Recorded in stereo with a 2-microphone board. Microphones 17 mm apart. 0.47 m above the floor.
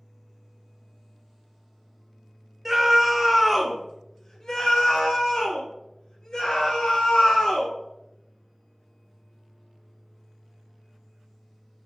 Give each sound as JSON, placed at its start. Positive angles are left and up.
{"t": 2.6, "sound": "a scream", "side_deg": -25, "distance_m": 1.1}